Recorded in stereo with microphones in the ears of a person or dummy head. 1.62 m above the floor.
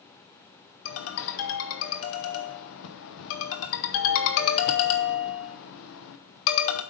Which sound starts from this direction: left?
A ringtone, at 0.8 s.